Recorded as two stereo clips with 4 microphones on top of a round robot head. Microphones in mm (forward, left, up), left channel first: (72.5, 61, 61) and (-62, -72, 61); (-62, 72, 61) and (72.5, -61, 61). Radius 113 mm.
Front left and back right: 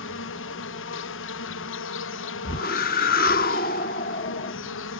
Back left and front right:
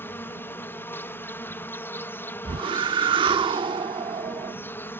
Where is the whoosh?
15° left.